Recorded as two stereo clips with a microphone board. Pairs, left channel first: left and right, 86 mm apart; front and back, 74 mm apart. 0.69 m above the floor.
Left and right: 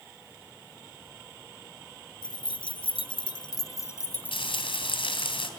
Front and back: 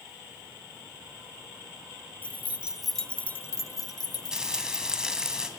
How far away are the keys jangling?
About 1.6 m.